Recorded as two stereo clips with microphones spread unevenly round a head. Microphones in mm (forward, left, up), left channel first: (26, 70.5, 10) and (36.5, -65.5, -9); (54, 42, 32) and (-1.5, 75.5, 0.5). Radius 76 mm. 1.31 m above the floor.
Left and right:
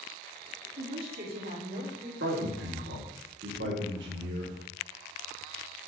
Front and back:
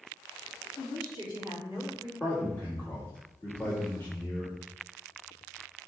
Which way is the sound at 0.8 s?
90° right.